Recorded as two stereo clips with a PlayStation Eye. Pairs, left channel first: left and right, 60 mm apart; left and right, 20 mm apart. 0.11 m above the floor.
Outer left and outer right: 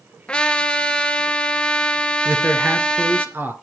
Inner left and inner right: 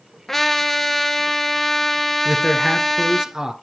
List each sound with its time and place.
0.3 s a trumpet: 20° left (ahead or behind), 1.0 m
2.2 s a man speaking: 35° right (ahead or behind), 1.3 m